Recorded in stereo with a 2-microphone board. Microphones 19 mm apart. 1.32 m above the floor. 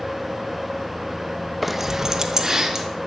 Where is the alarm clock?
I don't hear an alarm clock.